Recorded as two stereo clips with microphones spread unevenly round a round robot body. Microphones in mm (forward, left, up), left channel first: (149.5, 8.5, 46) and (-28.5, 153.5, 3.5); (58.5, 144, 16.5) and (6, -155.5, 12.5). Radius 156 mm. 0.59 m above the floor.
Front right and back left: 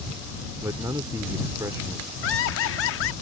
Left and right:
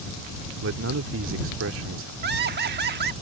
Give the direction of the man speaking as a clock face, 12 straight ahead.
5 o'clock.